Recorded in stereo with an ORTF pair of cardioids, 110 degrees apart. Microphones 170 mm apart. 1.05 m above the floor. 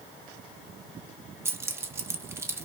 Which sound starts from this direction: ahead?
Keys jangling, at 1.4 s.